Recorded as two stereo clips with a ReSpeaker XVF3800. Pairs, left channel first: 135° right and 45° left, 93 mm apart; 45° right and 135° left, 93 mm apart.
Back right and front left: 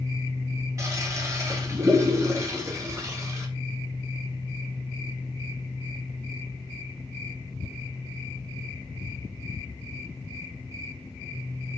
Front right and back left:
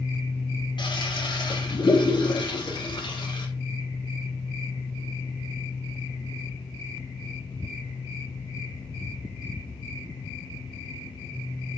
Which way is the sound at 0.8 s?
15° right.